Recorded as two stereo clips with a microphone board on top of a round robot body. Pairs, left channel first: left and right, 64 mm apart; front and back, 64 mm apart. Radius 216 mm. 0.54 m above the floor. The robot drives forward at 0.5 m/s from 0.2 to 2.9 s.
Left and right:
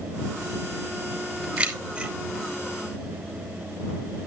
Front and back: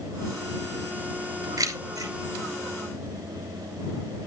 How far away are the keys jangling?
About 2.5 m.